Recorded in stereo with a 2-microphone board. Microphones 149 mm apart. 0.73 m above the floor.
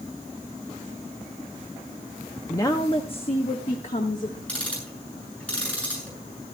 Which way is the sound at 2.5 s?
20° left (ahead or behind).